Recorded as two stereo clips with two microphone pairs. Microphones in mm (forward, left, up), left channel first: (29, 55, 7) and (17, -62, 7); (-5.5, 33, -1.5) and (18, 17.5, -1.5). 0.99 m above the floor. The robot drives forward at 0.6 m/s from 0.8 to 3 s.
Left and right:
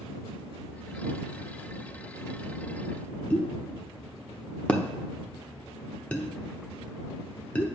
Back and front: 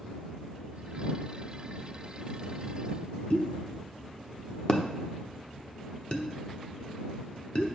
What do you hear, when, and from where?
3.3 s a pop: 155° left, 0.9 m